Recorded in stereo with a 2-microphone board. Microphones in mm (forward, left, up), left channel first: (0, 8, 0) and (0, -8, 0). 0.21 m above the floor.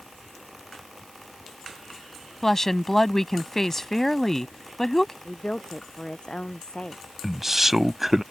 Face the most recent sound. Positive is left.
turn(degrees=-20)  # may be behind; listen again after turning